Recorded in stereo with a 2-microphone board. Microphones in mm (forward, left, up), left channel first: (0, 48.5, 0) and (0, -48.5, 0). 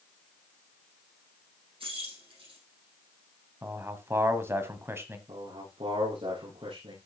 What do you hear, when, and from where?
1.8 s keys jangling: 70° right (ahead or behind), 5.5 m
3.6 s a man speaking: 25° right (ahead or behind), 1.5 m
5.3 s a man speaking: 75° right (ahead or behind), 6 m